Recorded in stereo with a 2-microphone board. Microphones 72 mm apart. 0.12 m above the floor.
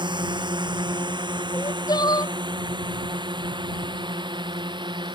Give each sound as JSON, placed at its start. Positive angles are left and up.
{"t": 0.0, "sound": "a drone", "side_deg": -80}
{"t": 1.5, "sound": "crying", "side_deg": 65}